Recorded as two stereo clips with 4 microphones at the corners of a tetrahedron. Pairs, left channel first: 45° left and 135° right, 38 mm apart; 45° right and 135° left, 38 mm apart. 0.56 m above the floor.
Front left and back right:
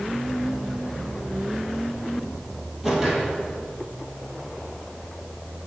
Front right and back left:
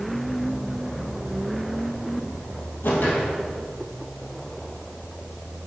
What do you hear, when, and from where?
2.8 s a whoosh: 50° right, 2 m